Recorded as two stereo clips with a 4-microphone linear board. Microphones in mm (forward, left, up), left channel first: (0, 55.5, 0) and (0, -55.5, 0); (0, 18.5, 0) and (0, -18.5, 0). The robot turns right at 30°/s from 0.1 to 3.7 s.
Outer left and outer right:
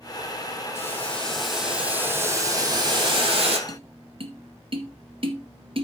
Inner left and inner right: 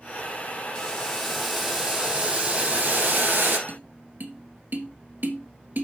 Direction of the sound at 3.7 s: 55° right (ahead or behind).